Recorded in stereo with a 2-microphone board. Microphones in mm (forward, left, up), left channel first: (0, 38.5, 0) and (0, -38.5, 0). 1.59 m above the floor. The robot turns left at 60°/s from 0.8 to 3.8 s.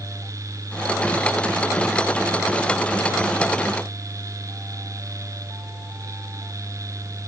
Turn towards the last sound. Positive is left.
No sound to turn to.